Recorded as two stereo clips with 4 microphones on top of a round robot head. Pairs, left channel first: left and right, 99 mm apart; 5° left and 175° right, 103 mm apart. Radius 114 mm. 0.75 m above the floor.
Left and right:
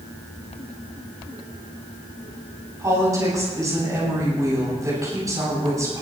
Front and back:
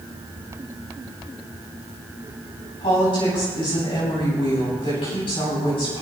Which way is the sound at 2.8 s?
35° right.